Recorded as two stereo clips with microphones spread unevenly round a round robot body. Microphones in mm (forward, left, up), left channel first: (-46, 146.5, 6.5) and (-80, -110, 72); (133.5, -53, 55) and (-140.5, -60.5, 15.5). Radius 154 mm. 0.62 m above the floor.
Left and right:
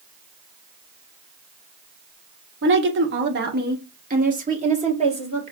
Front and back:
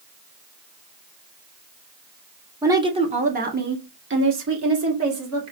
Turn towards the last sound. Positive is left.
turn(degrees=-170)